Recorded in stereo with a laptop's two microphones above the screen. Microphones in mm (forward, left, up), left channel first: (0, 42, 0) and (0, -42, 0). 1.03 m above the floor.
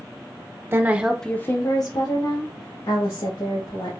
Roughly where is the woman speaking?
Right.